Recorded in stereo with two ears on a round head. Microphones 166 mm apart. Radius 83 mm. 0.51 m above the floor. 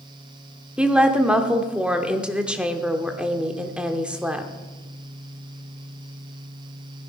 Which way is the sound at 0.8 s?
5° right (ahead or behind).